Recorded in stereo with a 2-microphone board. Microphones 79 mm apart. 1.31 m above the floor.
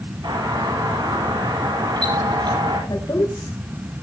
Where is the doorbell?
70° right (ahead or behind), 9.5 m.